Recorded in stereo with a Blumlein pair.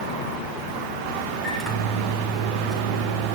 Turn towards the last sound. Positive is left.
turn(degrees=5)